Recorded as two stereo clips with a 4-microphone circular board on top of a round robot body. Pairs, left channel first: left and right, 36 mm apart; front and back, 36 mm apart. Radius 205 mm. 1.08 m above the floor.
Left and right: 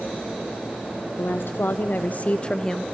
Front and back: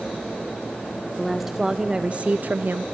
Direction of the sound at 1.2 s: 95° left.